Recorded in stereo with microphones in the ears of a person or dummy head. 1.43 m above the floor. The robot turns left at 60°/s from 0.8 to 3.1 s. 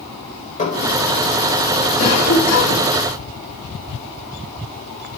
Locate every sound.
0.6 s dishes clattering: 30° left (ahead or behind), 4 m; by 0.9 s 40° left (ahead or behind), 4 m
2.0 s a cough: 140° left, 3.5 m; by 2.9 s 90° left, 3.5 m